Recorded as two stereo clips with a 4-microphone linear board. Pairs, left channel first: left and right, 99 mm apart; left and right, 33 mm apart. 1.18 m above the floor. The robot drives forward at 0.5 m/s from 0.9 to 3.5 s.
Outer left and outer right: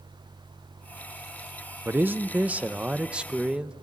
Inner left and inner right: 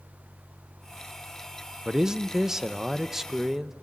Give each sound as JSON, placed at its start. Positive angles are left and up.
{"t": 1.9, "sound": "a man speaking", "side_deg": -20, "distance_m": 0.7}